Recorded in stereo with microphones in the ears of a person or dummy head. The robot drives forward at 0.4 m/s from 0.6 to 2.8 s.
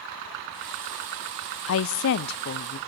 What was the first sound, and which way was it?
A woman speaking, 70° left (ahead or behind).